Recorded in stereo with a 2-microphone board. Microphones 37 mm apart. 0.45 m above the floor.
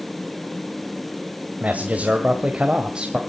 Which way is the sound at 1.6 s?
50° right (ahead or behind).